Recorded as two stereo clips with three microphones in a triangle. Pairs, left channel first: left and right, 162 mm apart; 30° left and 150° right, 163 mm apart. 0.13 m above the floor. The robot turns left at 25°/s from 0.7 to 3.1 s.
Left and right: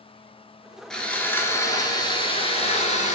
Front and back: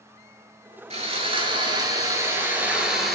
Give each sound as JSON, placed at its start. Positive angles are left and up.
{"t": 0.9, "sound": "sawing", "azimuth_deg": 175, "distance_m": 0.7}